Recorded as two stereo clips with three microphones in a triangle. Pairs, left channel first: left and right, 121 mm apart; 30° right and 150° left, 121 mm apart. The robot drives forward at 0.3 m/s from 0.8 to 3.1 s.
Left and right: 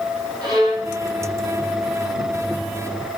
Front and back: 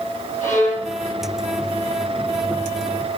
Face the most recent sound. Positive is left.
turn(degrees=-40)